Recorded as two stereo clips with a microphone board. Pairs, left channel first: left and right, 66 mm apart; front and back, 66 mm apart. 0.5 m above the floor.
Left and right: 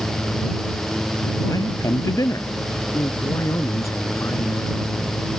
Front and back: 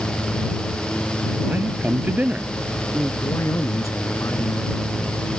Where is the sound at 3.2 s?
50° left.